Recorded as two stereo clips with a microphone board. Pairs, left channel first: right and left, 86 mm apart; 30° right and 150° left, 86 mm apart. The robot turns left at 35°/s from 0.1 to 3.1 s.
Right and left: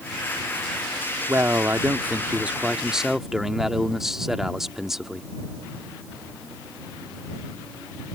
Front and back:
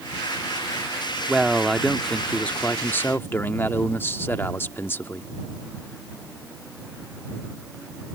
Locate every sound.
1.3 s a man speaking: 70° left; by 5.3 s 10° left